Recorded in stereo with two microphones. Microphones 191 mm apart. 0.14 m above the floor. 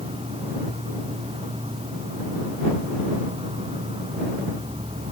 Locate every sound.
0.0 s an insect: 30° right (ahead or behind)